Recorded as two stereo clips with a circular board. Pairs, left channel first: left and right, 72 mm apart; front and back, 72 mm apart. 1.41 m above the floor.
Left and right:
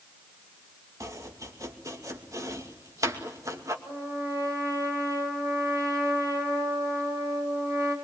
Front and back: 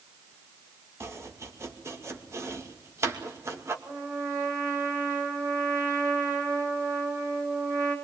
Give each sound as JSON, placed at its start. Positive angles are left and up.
{"t": 1.0, "sound": "chopping", "azimuth_deg": -130, "distance_m": 2.5}
{"t": 3.9, "sound": "a trumpet", "azimuth_deg": -130, "distance_m": 7.0}